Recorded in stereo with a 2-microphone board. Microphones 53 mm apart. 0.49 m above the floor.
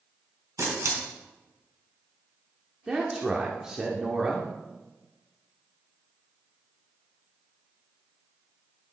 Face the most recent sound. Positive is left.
turn(degrees=-15)  # may be behind; listen again after turning